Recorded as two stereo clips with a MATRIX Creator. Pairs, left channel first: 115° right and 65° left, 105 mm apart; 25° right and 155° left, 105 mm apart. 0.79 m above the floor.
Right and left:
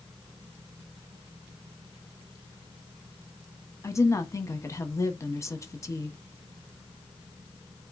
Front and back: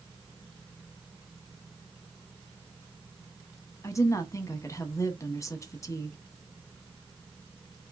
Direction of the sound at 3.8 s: 65° right.